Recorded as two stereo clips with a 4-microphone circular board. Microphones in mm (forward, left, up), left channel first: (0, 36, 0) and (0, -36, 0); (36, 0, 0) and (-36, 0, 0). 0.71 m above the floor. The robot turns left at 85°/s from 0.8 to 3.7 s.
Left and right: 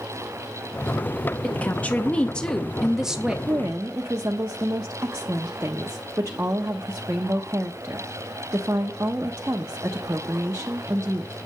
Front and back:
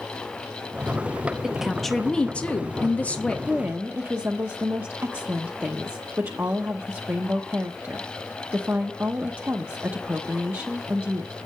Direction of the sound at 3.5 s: 110° right.